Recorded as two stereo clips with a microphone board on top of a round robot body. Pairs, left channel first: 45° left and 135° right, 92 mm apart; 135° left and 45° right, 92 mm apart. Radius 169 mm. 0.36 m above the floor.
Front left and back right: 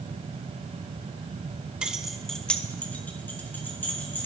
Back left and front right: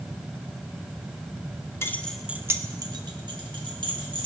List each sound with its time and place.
1.8 s keys jangling: 155° left, 0.8 m; by 4.2 s 25° right, 2.0 m